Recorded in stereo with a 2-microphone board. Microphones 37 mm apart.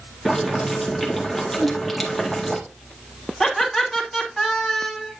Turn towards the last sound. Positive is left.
turn(degrees=0)  # may be behind; listen again after turning